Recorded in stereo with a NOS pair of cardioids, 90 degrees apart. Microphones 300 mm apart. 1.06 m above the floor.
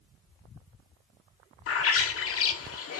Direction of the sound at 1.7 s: 50° left.